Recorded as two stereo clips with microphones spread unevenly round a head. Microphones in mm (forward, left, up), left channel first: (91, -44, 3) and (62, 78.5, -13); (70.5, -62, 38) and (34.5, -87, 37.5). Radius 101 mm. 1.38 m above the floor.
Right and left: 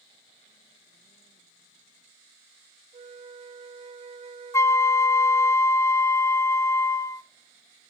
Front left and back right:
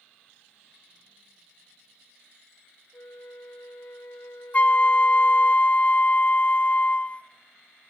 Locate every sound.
2.9 s a flute: 70° left, 1.3 m
4.5 s a flute: 15° right, 0.7 m